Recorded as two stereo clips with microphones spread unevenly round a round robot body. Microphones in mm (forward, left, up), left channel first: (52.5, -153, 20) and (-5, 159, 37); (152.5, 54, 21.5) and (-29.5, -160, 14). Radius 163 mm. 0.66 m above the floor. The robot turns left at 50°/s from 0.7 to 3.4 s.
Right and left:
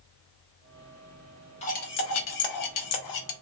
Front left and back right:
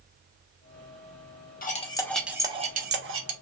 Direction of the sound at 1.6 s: 10° right.